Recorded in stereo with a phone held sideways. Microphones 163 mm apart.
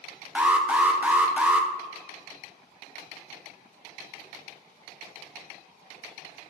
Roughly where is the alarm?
Centre.